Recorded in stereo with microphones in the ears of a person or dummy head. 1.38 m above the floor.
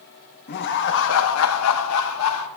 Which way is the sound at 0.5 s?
50° left (ahead or behind).